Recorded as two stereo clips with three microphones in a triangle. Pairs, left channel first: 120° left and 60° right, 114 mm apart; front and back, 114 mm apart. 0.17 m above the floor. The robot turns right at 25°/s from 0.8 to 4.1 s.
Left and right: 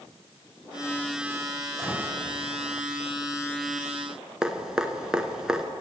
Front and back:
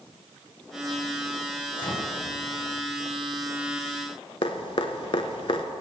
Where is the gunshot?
20° left, 1.8 m; by 2.0 s 25° left, 1.8 m.